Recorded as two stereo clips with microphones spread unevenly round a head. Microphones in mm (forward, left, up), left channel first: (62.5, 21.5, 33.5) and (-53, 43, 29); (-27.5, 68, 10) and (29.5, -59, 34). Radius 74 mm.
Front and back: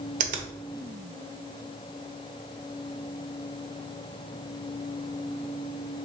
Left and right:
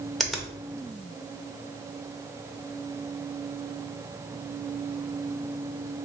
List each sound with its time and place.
0.2 s a finger snap: 155° right, 0.6 m